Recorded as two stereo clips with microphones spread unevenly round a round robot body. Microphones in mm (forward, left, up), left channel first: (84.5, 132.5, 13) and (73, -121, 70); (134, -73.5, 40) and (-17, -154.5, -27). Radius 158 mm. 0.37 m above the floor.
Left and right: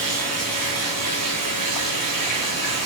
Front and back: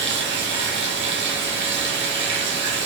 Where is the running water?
130° right, 1.0 m.